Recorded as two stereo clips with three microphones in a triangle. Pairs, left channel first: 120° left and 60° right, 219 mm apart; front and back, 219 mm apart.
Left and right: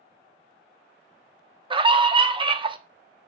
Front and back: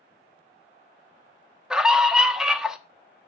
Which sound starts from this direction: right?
A scream, at 1.7 s.